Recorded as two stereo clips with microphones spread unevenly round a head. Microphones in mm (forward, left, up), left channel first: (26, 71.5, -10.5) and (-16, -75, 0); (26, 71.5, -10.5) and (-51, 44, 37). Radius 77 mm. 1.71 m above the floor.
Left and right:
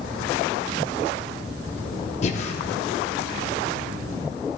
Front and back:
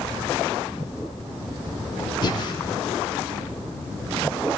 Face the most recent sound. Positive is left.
turn(degrees=70)